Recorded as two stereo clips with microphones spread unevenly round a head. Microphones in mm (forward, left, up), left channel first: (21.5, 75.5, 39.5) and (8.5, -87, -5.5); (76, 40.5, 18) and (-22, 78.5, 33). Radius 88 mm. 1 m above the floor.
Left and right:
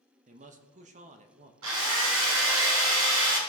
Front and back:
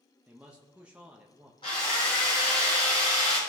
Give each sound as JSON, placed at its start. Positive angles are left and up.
{"t": 0.3, "sound": "a man speaking", "azimuth_deg": -115, "distance_m": 1.1}
{"t": 1.6, "sound": "a drill", "azimuth_deg": -90, "distance_m": 3.5}